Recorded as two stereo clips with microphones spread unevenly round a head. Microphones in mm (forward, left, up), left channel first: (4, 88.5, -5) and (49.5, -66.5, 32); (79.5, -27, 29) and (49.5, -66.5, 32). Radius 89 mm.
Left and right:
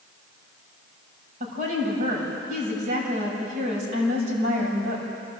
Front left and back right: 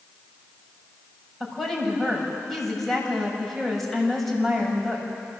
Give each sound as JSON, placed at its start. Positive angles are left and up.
{"t": 1.4, "sound": "a woman speaking", "azimuth_deg": -35, "distance_m": 6.5}